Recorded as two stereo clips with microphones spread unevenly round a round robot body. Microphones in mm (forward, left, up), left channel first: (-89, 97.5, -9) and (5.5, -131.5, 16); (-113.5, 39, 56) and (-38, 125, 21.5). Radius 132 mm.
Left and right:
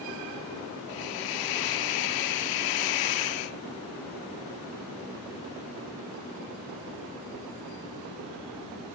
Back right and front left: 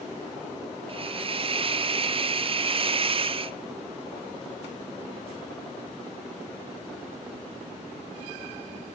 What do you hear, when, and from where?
0.9 s a hiss: 100° left, 0.6 m